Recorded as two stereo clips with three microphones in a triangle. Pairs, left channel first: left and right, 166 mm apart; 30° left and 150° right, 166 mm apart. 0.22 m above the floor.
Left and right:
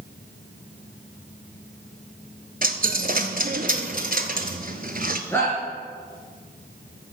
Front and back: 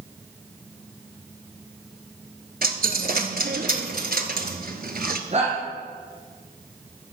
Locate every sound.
2.6 s a dropped coin: 120° right, 0.9 m
5.3 s a shout: 170° left, 3 m